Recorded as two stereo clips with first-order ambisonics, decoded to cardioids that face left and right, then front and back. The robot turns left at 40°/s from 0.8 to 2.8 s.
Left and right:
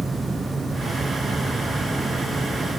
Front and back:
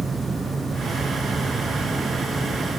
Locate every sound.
Only background noise.